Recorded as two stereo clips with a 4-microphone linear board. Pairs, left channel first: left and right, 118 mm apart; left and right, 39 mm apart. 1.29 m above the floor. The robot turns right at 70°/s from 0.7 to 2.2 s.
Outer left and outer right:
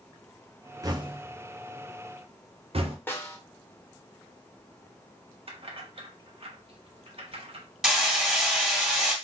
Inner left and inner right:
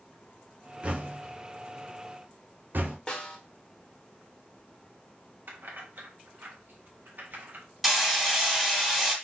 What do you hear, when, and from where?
0.8 s knocking: 30° right (ahead or behind), 0.8 m; by 3.0 s 55° right (ahead or behind), 0.8 m
3.1 s a snare drum: 20° left (ahead or behind), 1.0 m
5.5 s keys jangling: 50° right (ahead or behind), 1.1 m
7.8 s hammering: centre (ahead or behind), 1.6 m